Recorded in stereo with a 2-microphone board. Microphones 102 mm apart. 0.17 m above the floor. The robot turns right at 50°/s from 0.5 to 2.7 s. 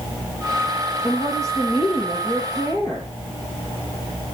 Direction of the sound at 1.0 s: 60° left.